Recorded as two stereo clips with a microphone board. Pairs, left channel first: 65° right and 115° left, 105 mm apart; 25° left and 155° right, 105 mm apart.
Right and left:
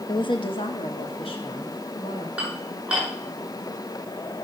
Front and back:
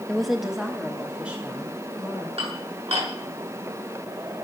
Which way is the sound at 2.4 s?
170° right.